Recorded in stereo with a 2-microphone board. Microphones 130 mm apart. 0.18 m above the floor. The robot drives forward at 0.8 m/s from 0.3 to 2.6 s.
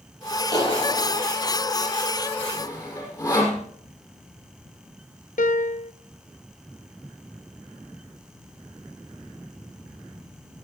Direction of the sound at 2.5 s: 25° left (ahead or behind).